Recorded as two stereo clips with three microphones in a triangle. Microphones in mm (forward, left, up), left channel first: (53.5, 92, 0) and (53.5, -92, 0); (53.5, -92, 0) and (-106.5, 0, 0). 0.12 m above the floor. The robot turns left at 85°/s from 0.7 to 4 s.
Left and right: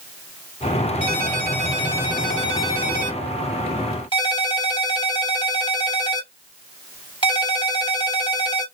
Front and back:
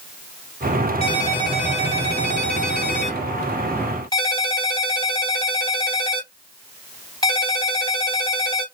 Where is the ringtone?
75° right, 1.5 m; by 8.7 s 30° left, 1.5 m.